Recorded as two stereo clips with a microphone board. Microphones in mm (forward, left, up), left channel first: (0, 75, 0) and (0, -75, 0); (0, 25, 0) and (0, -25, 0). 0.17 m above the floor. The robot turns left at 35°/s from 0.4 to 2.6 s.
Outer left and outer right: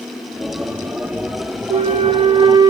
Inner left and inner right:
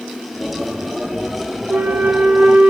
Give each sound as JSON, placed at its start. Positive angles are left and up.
{"t": 1.7, "sound": "a flute", "azimuth_deg": -110, "distance_m": 0.7}